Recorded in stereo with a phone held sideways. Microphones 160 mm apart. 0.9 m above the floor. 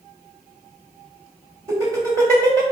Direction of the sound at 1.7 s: 20° right (ahead or behind).